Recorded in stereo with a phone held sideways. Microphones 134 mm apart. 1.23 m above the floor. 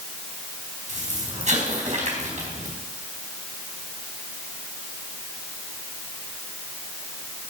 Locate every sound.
0.9 s an explosion: 65° right (ahead or behind), 4 m